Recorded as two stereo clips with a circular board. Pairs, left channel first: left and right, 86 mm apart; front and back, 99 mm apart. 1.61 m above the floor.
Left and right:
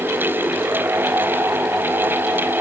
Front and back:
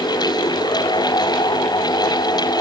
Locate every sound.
Only background noise.